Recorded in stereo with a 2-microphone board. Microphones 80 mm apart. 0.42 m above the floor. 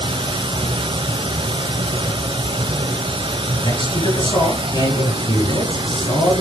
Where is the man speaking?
70° left (ahead or behind), 6.5 m.